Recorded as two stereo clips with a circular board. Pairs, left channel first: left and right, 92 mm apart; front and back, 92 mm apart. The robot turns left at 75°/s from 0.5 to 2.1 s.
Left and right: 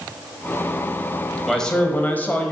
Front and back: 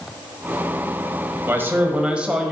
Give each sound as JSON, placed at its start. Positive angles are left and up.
{"t": 1.4, "sound": "a man speaking", "azimuth_deg": 170, "distance_m": 1.1}